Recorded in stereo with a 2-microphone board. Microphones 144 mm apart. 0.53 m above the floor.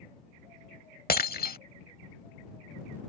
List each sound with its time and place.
1.1 s breaking glass: 85° left